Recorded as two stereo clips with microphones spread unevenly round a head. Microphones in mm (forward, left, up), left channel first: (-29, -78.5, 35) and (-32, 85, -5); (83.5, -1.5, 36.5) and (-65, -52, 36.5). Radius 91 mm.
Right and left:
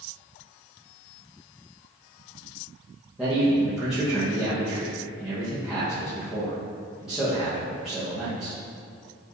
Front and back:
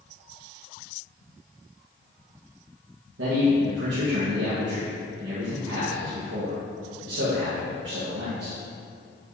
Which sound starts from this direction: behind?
A man speaking, at 3.2 s.